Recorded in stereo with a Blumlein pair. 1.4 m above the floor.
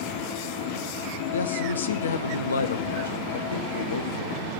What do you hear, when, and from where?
1.3 s a man speaking: 70° left, 0.8 m